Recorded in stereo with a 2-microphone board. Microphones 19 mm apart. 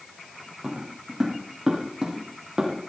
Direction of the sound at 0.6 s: 25° right (ahead or behind).